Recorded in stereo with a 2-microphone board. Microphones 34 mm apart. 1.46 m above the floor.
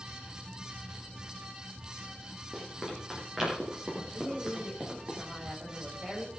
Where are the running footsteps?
10° right (ahead or behind), 10 m; by 5.1 s 15° right (ahead or behind), 8.5 m.